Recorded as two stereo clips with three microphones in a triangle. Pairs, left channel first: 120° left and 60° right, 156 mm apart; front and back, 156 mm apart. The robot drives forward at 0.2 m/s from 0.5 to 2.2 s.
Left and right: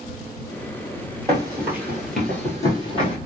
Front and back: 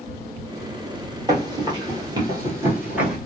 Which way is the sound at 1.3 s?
120° right.